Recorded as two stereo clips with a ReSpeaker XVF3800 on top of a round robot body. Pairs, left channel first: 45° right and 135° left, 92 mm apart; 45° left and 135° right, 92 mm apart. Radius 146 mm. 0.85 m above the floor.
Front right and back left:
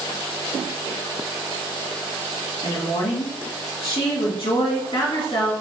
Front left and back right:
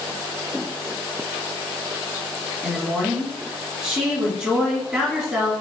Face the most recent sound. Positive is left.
turn(degrees=-60)